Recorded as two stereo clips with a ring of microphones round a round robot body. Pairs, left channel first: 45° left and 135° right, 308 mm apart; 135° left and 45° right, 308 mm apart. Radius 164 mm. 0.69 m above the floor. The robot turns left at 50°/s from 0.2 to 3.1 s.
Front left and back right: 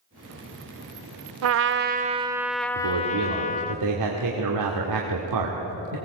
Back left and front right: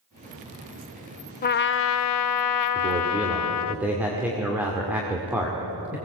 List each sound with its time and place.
1.4 s a trumpet: 170° right, 0.5 m; by 3.8 s 110° left, 0.5 m
2.8 s a man speaking: 110° right, 2 m; by 6.0 s 130° right, 2 m